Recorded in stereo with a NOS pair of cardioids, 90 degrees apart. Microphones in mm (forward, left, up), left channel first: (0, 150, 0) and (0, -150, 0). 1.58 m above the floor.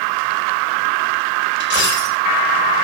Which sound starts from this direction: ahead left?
A dropped coin, at 1.6 s.